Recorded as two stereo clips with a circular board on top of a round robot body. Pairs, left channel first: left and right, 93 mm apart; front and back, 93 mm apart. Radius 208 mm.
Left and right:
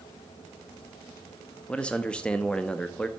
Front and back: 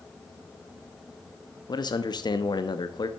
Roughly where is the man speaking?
Ahead.